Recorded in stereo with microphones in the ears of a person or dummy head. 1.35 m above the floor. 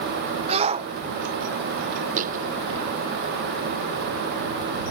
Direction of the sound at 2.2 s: 45° right (ahead or behind).